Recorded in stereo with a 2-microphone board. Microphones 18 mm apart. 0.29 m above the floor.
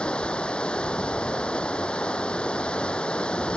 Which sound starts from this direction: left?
Running water, at 0.0 s.